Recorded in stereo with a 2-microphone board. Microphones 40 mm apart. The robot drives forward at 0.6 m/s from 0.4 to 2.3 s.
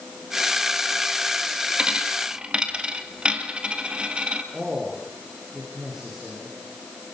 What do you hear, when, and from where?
1.8 s a dropped coin: 25° right (ahead or behind), 2.5 m
4.5 s a man speaking: 10° right (ahead or behind), 9 m